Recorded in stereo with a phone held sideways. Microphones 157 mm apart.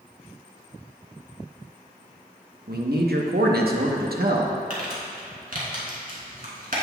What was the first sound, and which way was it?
A man speaking, 85° right.